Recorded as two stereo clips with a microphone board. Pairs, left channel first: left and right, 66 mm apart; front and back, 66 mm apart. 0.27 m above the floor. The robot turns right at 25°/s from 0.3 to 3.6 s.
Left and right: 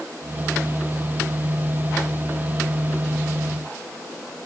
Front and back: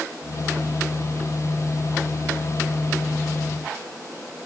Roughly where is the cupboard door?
No cupboard door in this recording.